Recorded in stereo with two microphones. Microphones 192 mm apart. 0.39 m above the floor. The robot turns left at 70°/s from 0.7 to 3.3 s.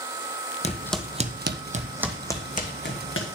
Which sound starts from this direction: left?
Footsteps, at 0.6 s.